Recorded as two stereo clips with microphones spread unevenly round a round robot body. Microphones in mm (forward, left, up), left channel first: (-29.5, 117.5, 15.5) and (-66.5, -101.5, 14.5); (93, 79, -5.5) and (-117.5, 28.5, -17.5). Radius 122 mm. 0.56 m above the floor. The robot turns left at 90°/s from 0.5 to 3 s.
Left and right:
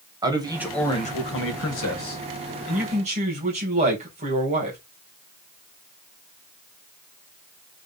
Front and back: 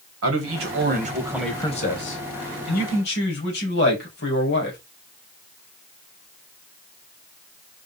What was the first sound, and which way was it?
A man speaking, 170° right.